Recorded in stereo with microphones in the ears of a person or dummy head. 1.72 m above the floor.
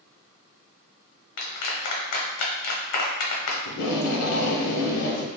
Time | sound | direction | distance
1.4 | a clap | 60° left (ahead or behind) | 0.9 m
3.6 | tape being pulled | 70° left (ahead or behind) | 0.9 m